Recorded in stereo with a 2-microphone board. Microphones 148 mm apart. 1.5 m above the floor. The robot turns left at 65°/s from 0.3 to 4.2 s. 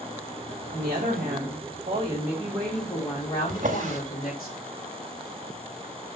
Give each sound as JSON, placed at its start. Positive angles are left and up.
{"t": 0.7, "sound": "a woman speaking", "azimuth_deg": -60, "distance_m": 3.0}
{"t": 3.5, "sound": "a drawer", "side_deg": -60, "distance_m": 1.4}